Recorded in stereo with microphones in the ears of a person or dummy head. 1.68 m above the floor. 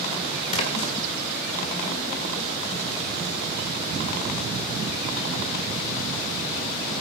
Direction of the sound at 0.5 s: 35° left (ahead or behind).